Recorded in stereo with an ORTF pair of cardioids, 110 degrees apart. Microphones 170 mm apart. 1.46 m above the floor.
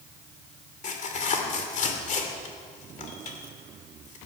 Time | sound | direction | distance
0.8 | tearing paper | 50° left | 2.5 m